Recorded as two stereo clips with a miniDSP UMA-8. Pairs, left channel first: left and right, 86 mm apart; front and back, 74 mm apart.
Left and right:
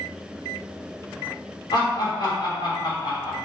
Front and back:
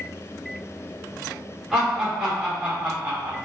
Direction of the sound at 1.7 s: 100° left.